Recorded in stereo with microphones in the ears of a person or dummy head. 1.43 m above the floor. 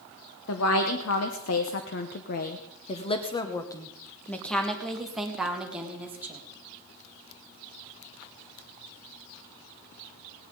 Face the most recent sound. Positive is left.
turn(degrees=-5)  # may be behind; listen again after turning